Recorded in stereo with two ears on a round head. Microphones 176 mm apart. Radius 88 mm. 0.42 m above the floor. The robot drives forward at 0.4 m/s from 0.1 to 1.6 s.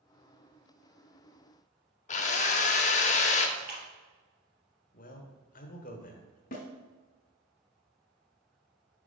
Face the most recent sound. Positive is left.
turn(degrees=45)  # may be behind; listen again after turning